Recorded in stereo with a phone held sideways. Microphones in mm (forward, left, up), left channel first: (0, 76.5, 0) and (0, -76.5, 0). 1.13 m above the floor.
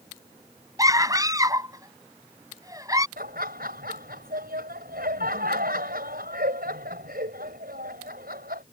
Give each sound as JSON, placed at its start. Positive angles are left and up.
{"t": 0.8, "sound": "a scream", "side_deg": -25}
{"t": 3.2, "sound": "laughter", "side_deg": -85}